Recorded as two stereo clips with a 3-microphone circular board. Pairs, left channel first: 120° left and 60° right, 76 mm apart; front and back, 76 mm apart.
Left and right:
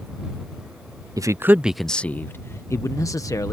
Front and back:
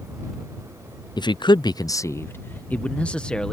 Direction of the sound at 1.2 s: 20° right.